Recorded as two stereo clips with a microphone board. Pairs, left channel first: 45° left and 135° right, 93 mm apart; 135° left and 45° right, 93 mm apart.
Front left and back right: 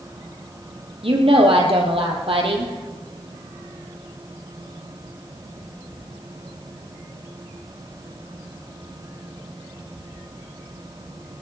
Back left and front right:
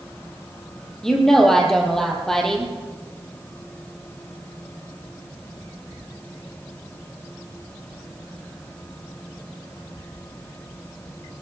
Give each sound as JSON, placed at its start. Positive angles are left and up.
{"t": 1.0, "sound": "a woman speaking", "azimuth_deg": -140, "distance_m": 3.5}